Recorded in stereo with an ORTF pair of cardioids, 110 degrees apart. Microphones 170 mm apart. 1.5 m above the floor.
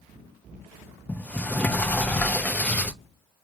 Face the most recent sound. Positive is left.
turn(degrees=10)